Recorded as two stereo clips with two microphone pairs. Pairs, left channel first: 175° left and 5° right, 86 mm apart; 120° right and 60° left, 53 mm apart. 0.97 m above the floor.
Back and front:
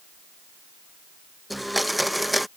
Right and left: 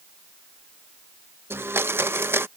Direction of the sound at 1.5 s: 90° left.